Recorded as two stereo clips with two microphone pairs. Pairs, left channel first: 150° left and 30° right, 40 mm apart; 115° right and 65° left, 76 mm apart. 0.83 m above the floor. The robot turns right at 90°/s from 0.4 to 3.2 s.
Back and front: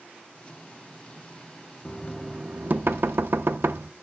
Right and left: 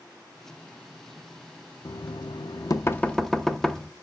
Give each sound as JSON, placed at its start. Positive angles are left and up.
{"t": 1.9, "sound": "knocking", "azimuth_deg": -150, "distance_m": 0.7}